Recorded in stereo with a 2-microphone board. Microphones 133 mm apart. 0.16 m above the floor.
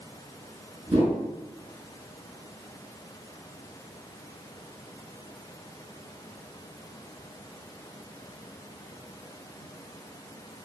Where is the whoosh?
35° right (ahead or behind), 1.1 m.